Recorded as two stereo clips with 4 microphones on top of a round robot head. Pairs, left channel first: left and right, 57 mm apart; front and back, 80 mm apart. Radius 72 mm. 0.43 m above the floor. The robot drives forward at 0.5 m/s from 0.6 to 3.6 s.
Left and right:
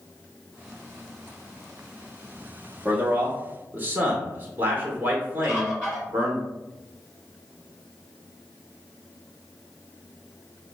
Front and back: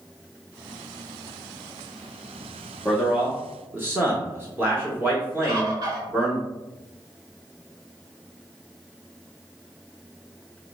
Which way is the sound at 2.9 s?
85° right.